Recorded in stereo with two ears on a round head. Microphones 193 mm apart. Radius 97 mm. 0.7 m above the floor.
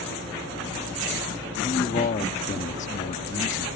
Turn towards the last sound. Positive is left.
turn(degrees=35)  # may be behind; listen again after turning